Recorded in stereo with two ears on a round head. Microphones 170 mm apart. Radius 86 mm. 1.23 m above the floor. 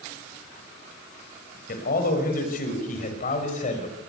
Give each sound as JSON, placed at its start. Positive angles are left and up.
{"t": 1.7, "sound": "a man speaking", "side_deg": 50, "distance_m": 7.0}